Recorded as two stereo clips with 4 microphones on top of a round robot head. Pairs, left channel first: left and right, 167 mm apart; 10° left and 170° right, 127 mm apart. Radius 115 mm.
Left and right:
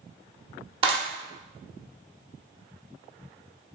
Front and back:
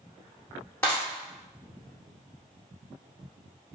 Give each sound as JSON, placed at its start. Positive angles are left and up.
{"t": 0.8, "sound": "a clap", "azimuth_deg": -60, "distance_m": 0.6}